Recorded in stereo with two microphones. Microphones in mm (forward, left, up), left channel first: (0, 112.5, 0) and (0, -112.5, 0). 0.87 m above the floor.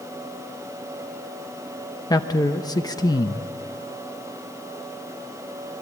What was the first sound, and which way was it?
A man speaking, 15° left (ahead or behind).